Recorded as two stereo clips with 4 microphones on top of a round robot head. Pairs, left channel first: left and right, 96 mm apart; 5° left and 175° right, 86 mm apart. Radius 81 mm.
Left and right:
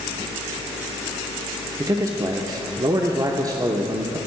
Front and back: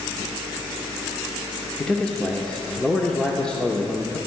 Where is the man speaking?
70° right, 0.9 m.